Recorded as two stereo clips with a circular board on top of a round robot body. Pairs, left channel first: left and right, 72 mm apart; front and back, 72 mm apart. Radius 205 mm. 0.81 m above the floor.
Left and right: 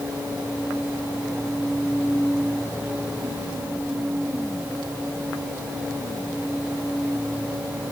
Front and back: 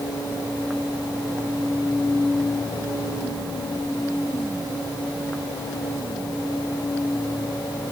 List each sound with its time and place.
Only background noise.